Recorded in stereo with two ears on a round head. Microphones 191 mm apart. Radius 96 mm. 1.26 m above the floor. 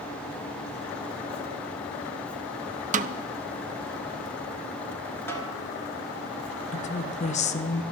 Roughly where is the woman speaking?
Left.